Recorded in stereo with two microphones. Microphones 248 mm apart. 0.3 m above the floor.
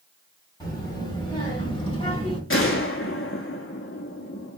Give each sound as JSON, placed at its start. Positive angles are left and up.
{"t": 0.6, "sound": "a child speaking", "side_deg": 15, "distance_m": 1.4}
{"t": 2.5, "sound": "a gunshot", "side_deg": 55, "distance_m": 0.6}